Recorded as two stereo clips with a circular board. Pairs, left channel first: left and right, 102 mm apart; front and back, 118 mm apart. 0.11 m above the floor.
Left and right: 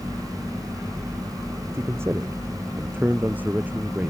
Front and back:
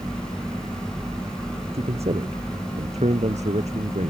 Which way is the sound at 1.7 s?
155° right.